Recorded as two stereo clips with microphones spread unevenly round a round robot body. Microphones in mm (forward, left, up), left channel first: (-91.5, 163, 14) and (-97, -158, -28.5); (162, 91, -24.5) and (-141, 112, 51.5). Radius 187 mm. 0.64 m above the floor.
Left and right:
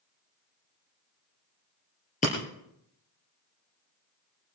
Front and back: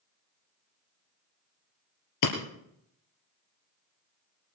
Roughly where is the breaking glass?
Ahead.